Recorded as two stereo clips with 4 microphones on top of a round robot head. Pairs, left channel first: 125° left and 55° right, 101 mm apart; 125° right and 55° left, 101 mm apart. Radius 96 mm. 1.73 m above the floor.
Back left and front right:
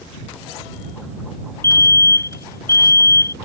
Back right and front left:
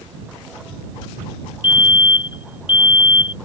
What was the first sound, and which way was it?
A fire alarm, 170° right.